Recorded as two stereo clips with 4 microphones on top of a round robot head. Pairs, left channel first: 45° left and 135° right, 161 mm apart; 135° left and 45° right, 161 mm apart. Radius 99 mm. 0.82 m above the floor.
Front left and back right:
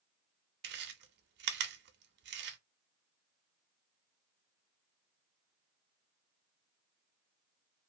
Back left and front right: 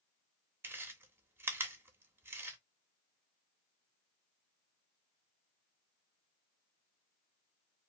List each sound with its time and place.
0.6 s chewing: 125° right, 0.6 m